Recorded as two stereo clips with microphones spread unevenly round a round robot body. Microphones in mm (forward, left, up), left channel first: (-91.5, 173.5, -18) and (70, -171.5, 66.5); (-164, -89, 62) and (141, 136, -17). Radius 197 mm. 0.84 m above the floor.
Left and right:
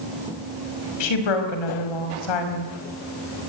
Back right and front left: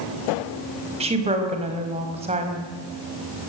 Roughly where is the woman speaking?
Left.